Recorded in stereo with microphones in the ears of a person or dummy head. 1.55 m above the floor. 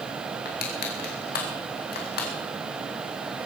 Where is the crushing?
50° left (ahead or behind), 2.5 m.